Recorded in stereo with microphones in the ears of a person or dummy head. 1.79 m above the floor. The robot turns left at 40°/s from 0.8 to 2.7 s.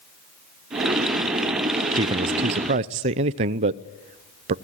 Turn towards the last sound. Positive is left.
turn(degrees=-75)